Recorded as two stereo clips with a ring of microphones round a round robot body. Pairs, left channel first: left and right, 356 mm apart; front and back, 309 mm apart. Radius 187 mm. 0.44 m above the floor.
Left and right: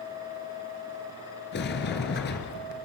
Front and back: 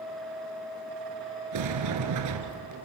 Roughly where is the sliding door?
Behind left.